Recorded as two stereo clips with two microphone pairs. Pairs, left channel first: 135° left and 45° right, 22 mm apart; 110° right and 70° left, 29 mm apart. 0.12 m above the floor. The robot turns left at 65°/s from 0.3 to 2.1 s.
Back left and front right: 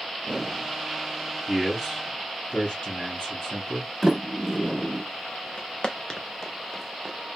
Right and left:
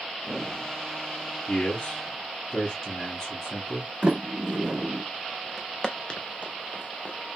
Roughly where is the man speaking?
Behind right.